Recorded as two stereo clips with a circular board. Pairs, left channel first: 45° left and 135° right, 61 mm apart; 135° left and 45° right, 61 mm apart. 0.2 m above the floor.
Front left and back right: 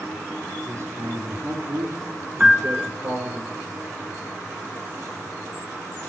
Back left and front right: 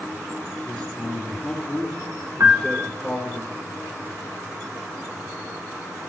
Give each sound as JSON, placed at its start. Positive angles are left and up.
{"t": 0.7, "sound": "a man speaking", "azimuth_deg": -145, "distance_m": 3.0}
{"t": 2.4, "sound": "a piano", "azimuth_deg": -70, "distance_m": 0.9}